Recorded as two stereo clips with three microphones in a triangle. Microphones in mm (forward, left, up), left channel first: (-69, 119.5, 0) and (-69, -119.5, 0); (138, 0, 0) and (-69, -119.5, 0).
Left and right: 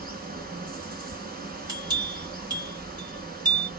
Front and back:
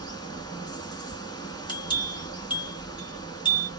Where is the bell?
30° right, 1.3 m.